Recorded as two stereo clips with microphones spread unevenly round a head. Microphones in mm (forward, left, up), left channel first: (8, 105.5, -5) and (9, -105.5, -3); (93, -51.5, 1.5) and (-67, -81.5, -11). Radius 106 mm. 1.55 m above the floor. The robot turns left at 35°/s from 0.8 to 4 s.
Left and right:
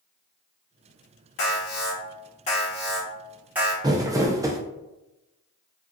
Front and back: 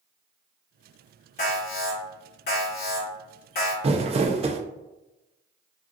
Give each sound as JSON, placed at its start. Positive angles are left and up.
{"t": 1.4, "sound": "an alarm", "azimuth_deg": 70, "distance_m": 1.9}
{"t": 3.8, "sound": "crumpling", "azimuth_deg": -145, "distance_m": 0.5}